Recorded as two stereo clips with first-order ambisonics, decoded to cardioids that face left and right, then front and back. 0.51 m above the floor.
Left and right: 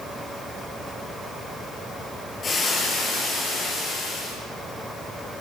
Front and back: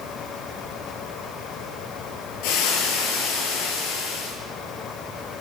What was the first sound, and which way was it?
Frying, 20° left.